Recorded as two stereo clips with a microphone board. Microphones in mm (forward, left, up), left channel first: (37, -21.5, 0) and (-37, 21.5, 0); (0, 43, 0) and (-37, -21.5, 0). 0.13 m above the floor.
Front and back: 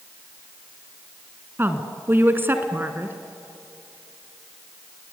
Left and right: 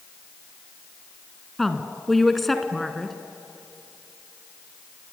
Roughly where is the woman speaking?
Behind left.